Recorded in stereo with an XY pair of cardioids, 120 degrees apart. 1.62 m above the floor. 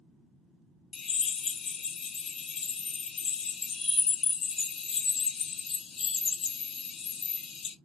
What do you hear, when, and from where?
0.9 s a drill: 45° left, 1.5 m